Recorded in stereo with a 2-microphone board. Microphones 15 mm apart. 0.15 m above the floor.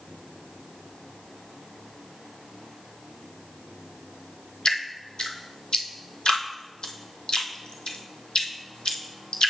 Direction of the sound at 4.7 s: 80° left.